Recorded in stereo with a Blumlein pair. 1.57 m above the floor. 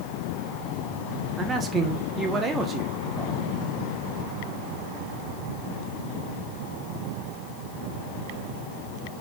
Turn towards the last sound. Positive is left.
turn(degrees=-20)